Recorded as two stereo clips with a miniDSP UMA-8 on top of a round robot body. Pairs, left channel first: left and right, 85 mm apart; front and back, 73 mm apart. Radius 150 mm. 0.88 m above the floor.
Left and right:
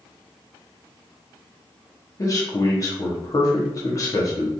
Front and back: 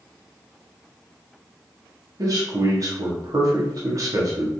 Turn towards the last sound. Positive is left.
turn(degrees=140)